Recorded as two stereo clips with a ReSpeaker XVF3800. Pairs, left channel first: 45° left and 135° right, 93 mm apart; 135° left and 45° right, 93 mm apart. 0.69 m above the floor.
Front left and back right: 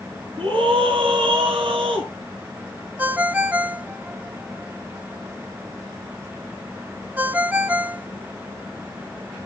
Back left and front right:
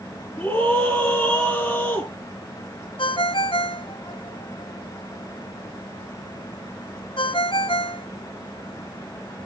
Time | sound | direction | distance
0.4 | a scream | 150° right | 6 m
3.0 | a ringtone | 155° left | 0.7 m